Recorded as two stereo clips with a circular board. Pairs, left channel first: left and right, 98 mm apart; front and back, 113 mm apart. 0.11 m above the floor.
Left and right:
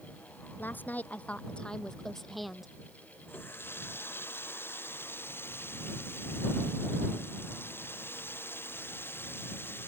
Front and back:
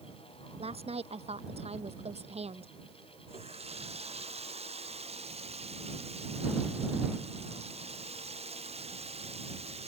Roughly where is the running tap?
Behind.